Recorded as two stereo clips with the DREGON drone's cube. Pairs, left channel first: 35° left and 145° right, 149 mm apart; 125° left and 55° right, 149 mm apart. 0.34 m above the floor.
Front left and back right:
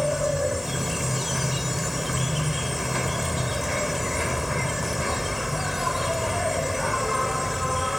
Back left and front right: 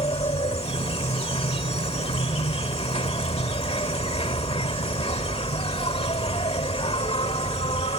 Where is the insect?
125° left.